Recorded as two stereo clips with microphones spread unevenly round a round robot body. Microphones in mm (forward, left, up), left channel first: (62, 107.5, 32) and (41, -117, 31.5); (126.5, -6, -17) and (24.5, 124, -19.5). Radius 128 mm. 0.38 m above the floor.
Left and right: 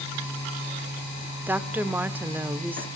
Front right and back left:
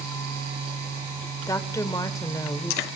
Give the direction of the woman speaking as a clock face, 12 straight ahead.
1 o'clock.